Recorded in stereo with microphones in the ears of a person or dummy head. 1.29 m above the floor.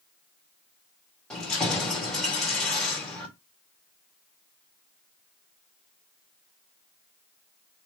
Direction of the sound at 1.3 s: 5° left (ahead or behind).